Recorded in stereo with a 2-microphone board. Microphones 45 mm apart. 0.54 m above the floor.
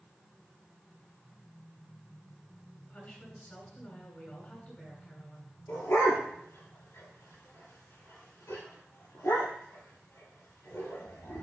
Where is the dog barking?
75° left (ahead or behind), 5 m.